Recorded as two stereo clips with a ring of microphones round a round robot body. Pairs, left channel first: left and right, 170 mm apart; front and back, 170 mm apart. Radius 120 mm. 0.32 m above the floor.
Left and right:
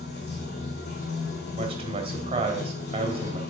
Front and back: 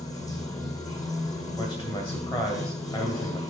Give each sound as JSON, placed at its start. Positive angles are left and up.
{"t": 0.0, "sound": "running water", "azimuth_deg": 70, "distance_m": 3.0}
{"t": 1.6, "sound": "a man speaking", "azimuth_deg": -55, "distance_m": 1.9}